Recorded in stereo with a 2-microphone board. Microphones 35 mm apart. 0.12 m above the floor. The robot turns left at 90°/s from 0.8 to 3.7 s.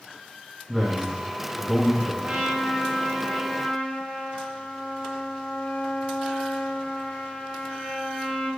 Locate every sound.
0.7 s a man speaking: 20° left (ahead or behind), 1.1 m; by 2.1 s centre (ahead or behind), 1.1 m
2.2 s a trumpet: 85° right, 1.5 m; by 8.5 s 145° left, 1.5 m